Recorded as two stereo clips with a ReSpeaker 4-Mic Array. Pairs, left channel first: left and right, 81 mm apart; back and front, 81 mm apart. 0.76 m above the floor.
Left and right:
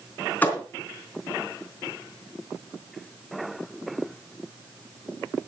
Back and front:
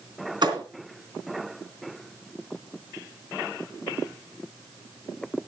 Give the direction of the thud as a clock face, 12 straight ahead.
11 o'clock.